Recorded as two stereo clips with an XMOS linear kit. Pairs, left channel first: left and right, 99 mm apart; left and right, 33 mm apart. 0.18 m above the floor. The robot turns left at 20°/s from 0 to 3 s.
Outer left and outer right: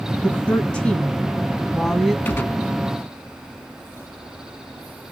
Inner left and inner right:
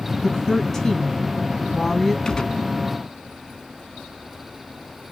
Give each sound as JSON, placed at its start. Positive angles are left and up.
{"t": 0.2, "sound": "a woman speaking", "side_deg": 15, "distance_m": 1.3}
{"t": 2.2, "sound": "a gunshot", "side_deg": 20, "distance_m": 0.5}